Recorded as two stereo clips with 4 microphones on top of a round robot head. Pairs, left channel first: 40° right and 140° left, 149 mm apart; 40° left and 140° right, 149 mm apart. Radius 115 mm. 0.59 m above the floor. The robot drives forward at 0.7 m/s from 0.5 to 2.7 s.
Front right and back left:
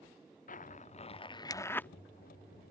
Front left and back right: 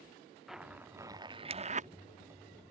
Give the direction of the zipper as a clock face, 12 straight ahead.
2 o'clock.